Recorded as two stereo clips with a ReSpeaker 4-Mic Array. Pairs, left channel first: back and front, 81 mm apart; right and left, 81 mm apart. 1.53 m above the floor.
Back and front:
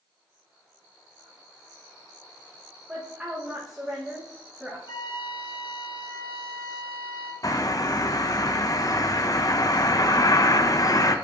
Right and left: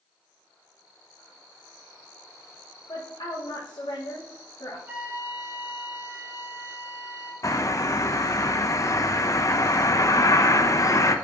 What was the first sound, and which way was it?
A woman speaking, 85° right.